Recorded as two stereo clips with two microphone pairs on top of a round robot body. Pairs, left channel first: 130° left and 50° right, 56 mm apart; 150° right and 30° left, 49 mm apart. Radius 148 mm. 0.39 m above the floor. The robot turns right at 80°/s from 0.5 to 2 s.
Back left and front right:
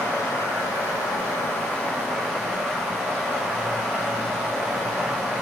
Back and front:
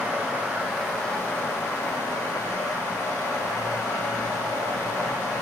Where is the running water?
95° left, 2.0 m; by 5.4 s 145° right, 2.0 m.